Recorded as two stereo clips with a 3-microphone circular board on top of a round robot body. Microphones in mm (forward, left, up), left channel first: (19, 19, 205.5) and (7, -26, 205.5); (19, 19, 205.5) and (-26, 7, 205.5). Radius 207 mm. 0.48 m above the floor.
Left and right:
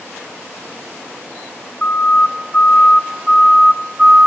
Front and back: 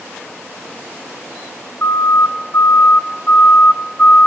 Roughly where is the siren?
Ahead.